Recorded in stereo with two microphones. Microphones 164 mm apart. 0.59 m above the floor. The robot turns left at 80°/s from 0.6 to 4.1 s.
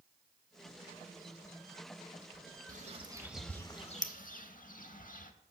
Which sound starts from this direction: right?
A bird, at 2.7 s.